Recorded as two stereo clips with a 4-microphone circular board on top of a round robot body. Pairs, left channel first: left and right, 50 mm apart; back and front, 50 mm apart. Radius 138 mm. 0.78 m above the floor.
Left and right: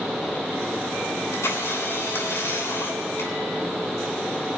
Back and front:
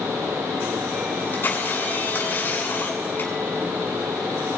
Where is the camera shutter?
130° left, 8 m.